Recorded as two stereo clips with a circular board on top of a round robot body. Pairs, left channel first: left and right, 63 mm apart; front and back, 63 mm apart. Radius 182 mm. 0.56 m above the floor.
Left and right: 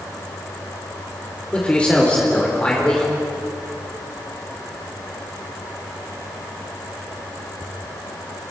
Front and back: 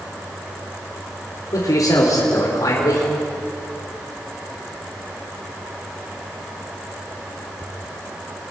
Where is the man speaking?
15° left, 3 m.